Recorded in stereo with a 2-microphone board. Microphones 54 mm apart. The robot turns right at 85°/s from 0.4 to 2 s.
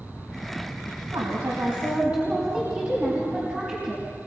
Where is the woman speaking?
95° right, 4 m; by 4.0 s 20° right, 4 m.